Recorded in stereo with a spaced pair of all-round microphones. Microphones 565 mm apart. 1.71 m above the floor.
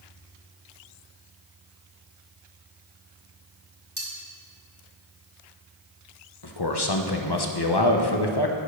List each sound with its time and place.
4.0 s cutlery clinking: 65° right (ahead or behind), 2.5 m
6.4 s a man speaking: 45° left (ahead or behind), 1.0 m